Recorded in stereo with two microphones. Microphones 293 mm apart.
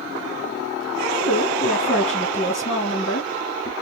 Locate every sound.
1.2 s a woman speaking: 25° left (ahead or behind), 1.2 m